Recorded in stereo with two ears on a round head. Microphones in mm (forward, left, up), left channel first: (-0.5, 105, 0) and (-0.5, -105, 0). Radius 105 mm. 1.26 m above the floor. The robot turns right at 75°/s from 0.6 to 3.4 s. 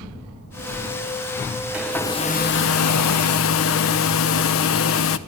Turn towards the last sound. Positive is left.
turn(degrees=115)